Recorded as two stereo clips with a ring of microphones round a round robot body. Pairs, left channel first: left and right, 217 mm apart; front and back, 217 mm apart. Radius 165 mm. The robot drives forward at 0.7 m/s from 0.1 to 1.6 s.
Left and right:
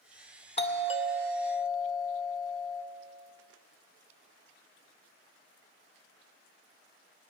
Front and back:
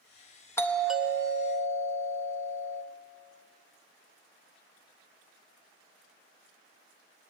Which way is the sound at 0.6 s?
70° left.